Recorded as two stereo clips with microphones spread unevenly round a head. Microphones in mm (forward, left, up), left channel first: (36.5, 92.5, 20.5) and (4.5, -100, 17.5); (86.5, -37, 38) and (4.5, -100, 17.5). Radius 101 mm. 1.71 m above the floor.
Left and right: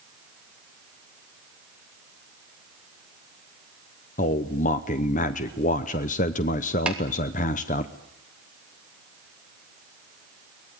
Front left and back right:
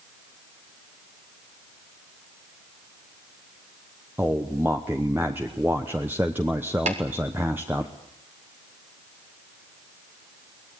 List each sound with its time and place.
4.2 s a man speaking: 135° left, 0.8 m
6.9 s tapping: 175° left, 3 m